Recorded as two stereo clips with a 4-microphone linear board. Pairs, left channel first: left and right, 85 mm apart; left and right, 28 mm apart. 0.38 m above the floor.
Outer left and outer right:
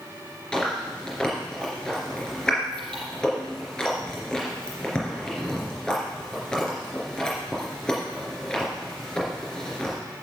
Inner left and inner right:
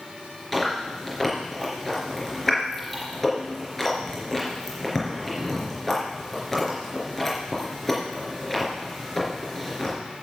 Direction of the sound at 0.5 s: 10° left (ahead or behind).